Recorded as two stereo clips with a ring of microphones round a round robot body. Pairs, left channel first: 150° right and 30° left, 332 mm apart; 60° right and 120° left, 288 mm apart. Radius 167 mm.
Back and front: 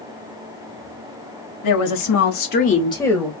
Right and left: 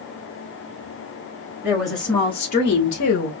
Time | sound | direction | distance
1.6 | a woman speaking | 160° right | 1.7 m